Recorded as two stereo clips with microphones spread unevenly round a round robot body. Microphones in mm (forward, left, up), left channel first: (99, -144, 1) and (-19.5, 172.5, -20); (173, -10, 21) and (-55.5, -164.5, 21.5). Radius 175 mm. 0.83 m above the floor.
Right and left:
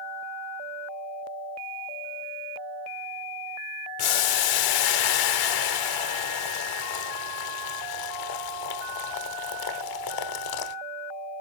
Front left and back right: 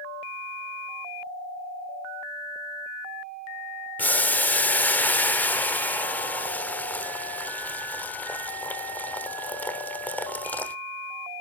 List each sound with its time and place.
4.0 s boiling: 50° right, 1.1 m